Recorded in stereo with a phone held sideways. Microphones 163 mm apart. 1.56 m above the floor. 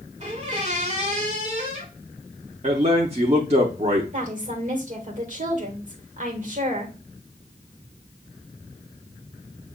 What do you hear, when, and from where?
0.2 s a squeak: 45° right (ahead or behind), 1.9 m
2.6 s a man speaking: 45° right (ahead or behind), 0.7 m
4.1 s a woman speaking: 50° right (ahead or behind), 1.8 m